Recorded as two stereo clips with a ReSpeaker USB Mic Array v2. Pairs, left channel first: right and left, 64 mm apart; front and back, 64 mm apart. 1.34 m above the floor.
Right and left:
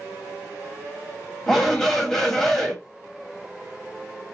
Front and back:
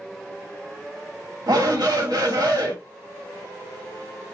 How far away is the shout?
About 1.5 m.